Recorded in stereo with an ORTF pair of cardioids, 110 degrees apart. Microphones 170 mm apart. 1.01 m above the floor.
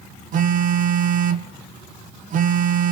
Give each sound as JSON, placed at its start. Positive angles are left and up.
{"t": 0.3, "sound": "a phone buzzing", "azimuth_deg": -55, "distance_m": 0.8}